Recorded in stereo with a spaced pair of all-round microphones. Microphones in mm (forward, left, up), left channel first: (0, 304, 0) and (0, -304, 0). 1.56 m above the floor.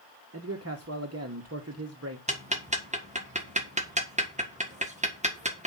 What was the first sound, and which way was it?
A man speaking, 25° right (ahead or behind).